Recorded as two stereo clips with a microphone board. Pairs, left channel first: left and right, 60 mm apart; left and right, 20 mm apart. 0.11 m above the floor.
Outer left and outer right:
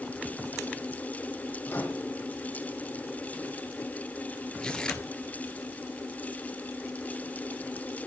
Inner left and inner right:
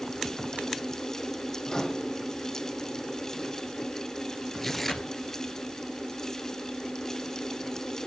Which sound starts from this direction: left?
A microwave, at 1.7 s.